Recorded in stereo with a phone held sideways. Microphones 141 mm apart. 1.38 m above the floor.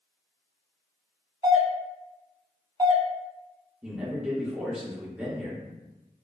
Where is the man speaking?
10° right (ahead or behind), 0.7 m.